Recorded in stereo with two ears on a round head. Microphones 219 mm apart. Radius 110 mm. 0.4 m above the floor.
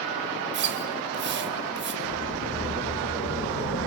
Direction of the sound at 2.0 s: 20° left (ahead or behind).